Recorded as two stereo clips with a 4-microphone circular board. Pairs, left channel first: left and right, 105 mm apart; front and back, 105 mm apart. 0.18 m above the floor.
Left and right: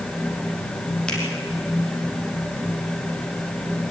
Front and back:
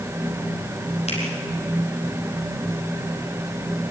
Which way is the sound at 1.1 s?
10° left.